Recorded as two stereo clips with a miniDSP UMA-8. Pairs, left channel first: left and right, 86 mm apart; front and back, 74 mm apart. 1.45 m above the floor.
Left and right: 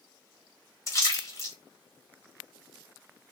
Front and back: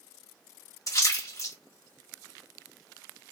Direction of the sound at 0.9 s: 40° left.